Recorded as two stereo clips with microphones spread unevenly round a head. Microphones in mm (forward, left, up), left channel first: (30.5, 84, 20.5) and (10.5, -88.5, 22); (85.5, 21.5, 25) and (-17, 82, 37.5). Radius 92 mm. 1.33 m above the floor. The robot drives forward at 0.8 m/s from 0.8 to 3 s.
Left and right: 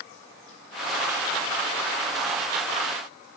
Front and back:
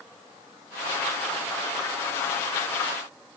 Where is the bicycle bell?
I don't hear a bicycle bell.